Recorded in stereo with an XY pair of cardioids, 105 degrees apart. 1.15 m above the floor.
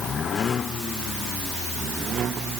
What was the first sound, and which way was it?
Only background noise.